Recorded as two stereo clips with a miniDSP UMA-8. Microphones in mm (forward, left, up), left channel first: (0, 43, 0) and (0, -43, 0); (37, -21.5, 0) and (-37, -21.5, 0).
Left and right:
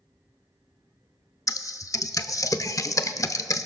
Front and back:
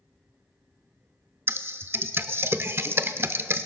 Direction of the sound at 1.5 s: 130° left.